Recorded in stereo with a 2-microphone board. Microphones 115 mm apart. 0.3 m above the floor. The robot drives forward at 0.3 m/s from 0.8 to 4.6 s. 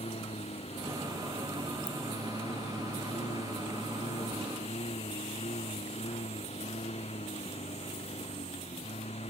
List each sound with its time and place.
0.0 s a lawn mower: 65° left (ahead or behind)
1.9 s a ringtone: 30° right (ahead or behind)